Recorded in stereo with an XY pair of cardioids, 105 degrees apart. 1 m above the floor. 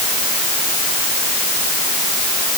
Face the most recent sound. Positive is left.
No sound to turn to.